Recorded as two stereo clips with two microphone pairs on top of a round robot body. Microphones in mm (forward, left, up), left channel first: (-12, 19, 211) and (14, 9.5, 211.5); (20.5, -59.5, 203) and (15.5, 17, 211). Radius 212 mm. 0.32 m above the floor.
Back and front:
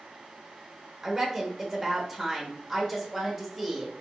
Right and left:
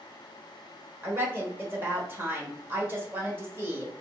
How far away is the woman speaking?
About 1.5 m.